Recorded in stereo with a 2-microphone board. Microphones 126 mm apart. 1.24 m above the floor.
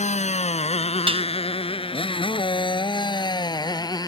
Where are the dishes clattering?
45° right (ahead or behind).